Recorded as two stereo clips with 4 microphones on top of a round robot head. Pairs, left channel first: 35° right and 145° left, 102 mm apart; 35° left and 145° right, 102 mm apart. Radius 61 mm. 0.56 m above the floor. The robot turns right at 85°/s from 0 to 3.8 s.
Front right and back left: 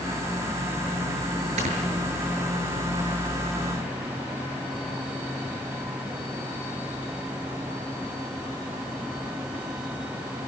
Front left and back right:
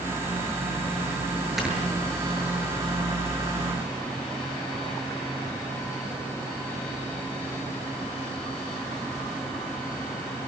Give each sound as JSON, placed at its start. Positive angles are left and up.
{"t": 1.6, "sound": "snoring", "azimuth_deg": 125, "distance_m": 7.5}